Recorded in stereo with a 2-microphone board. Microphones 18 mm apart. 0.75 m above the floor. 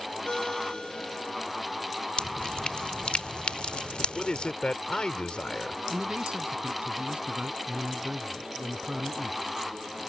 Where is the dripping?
65° left (ahead or behind).